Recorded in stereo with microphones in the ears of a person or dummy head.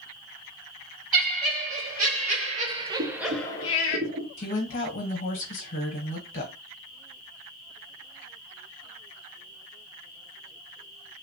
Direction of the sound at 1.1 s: 55° right (ahead or behind).